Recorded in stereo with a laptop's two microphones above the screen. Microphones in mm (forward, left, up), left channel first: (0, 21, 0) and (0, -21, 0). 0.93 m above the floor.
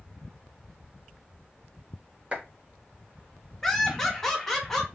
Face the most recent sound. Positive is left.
turn(degrees=5)  # may be behind; listen again after turning